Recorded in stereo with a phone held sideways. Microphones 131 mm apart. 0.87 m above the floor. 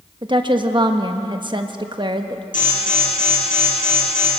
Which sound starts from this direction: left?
An alarm, at 2.5 s.